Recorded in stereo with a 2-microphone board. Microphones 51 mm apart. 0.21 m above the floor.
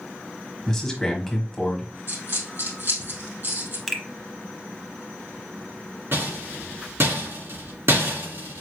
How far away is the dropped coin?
About 2.5 m.